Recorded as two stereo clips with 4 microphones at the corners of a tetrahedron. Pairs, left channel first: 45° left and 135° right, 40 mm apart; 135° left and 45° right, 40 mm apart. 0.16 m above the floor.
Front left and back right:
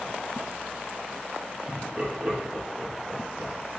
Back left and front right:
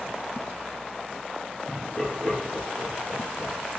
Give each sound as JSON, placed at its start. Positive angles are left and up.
{"t": 1.7, "sound": "laughter", "azimuth_deg": 170, "distance_m": 1.9}